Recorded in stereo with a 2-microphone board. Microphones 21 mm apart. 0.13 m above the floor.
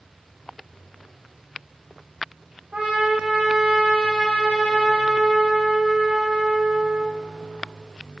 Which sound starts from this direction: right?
A trumpet, at 2.7 s.